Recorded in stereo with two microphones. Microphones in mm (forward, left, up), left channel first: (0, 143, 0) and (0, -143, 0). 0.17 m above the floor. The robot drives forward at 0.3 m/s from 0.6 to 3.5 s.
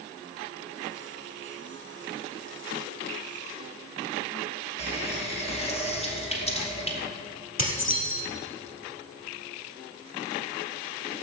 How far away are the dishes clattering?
About 2.5 m.